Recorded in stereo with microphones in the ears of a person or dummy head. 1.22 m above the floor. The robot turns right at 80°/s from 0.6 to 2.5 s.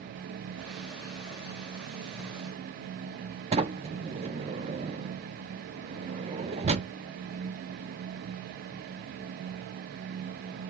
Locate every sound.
3.5 s a sliding door: 30° right (ahead or behind), 0.7 m